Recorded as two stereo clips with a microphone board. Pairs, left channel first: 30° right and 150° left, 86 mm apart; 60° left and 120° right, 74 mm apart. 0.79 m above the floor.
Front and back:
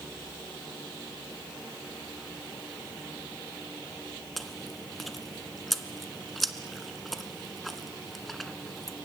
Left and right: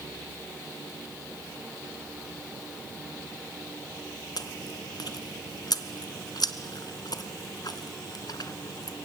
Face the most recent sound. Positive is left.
turn(degrees=55)